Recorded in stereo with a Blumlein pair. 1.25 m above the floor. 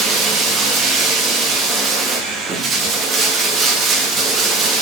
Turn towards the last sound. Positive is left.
turn(degrees=-25)